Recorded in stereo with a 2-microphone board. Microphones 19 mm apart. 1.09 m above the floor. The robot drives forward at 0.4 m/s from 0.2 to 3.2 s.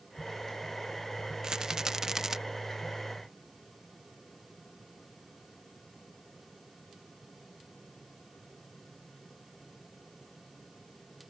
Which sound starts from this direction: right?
A rattle, at 1.4 s.